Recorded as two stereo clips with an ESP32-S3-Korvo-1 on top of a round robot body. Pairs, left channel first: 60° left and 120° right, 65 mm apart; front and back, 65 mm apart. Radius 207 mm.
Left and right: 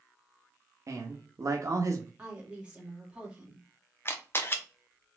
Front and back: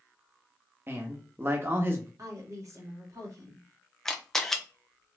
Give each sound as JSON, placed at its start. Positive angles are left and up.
{"t": 0.9, "sound": "a man speaking", "azimuth_deg": -135, "distance_m": 1.2}
{"t": 2.2, "sound": "a woman speaking", "azimuth_deg": 170, "distance_m": 2.0}
{"t": 4.0, "sound": "a camera shutter", "azimuth_deg": 80, "distance_m": 1.1}